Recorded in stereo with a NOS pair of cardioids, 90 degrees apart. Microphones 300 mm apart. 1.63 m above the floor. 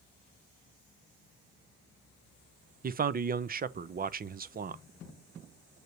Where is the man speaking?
30° right, 0.5 m.